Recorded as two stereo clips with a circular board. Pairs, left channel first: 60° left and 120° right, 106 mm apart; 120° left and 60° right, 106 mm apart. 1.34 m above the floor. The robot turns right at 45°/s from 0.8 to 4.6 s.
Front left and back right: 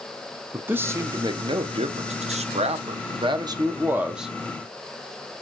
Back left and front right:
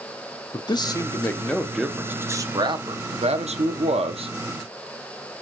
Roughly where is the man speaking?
Behind.